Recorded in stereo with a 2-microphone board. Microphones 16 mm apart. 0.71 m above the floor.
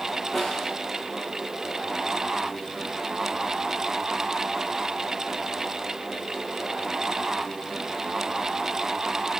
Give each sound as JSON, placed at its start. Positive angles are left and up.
{"t": 0.3, "sound": "a snare drum", "side_deg": 5, "distance_m": 9.0}